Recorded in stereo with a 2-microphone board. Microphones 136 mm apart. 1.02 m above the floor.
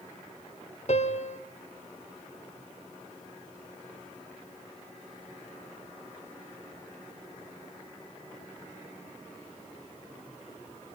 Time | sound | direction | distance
0.9 | a piano | 55° left (ahead or behind) | 1.3 m